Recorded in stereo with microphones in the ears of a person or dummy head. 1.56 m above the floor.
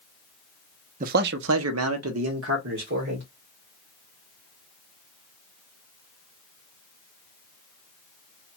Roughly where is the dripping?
I don't hear dripping.